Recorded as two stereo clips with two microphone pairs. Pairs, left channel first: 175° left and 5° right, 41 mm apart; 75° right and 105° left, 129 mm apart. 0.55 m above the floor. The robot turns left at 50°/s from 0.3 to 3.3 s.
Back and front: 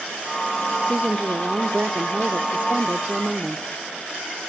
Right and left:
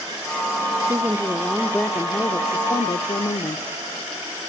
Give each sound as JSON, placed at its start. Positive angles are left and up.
{"t": 0.8, "sound": "a woman speaking", "azimuth_deg": 55, "distance_m": 1.0}